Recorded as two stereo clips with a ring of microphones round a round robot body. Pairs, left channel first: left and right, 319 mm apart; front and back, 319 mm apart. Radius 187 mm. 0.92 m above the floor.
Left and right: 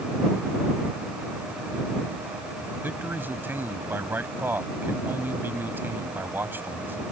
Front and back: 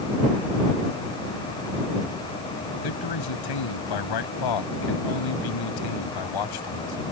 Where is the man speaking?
5° right.